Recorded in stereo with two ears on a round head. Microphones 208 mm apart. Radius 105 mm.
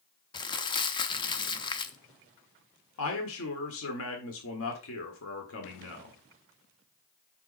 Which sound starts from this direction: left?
A man speaking, at 3.0 s.